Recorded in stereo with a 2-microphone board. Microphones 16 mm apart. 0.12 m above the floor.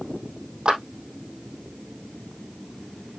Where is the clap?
70° right (ahead or behind), 4 m.